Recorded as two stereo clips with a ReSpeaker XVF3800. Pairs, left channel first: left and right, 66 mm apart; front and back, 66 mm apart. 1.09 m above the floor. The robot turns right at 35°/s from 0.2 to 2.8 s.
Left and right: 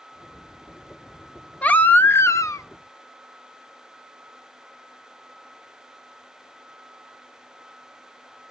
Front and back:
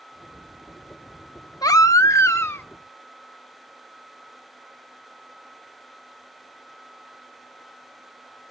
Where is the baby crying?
20° left, 0.6 m; by 2.6 s 55° left, 0.6 m.